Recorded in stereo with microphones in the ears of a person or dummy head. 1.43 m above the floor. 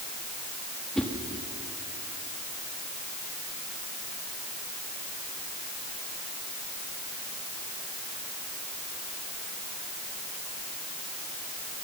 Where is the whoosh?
Centre (ahead or behind), 1.5 m.